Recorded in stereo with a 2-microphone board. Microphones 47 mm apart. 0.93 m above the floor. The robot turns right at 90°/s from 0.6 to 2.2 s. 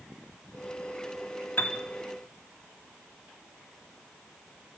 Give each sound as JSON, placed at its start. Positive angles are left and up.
{"t": 1.6, "sound": "a piano", "side_deg": 50, "distance_m": 2.5}